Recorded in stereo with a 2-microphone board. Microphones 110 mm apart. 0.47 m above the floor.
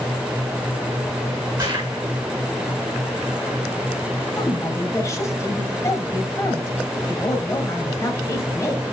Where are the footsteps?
40° right (ahead or behind), 3.5 m.